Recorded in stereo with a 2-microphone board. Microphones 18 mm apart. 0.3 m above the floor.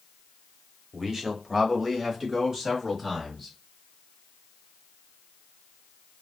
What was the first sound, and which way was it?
A man speaking, 20° right (ahead or behind).